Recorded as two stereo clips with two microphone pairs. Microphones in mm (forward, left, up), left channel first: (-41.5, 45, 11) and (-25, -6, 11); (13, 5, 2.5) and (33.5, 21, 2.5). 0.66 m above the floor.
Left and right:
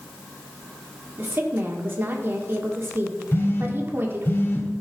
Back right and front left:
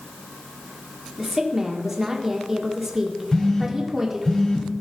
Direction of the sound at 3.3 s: 155° left.